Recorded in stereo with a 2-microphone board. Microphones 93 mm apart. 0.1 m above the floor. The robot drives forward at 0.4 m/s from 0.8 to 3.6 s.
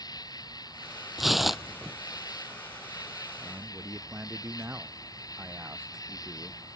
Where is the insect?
45° left (ahead or behind); by 6.8 s 40° left (ahead or behind).